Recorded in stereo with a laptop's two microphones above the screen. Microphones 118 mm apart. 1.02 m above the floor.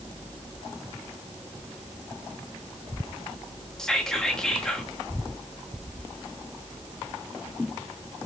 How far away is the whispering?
About 0.7 m.